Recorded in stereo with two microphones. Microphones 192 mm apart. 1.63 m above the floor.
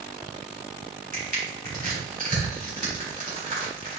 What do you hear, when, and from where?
1.1 s crushing: 45° right (ahead or behind), 3.5 m